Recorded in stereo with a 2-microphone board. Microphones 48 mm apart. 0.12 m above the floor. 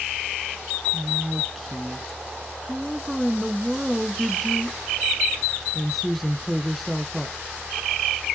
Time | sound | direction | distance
0.9 | a woman speaking | centre (ahead or behind) | 1.1 m